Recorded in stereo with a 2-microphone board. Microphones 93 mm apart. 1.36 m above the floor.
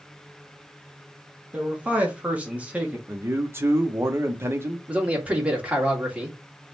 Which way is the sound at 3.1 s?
30° right (ahead or behind).